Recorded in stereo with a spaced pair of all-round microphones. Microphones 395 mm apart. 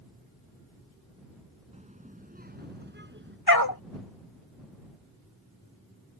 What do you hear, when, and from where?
1.7 s a child speaking: 15° right (ahead or behind); by 3.4 s 30° right (ahead or behind)
3.5 s a dog barking: 60° left (ahead or behind)